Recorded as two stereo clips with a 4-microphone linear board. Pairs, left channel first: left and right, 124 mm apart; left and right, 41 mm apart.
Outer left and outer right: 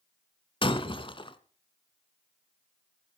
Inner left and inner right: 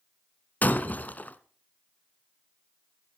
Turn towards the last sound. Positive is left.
turn(degrees=45)  # may be behind; listen again after turning